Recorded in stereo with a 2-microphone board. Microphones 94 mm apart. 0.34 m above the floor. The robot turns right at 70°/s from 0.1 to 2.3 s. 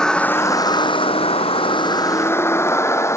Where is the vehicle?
10° left (ahead or behind); by 3.2 s 30° left (ahead or behind).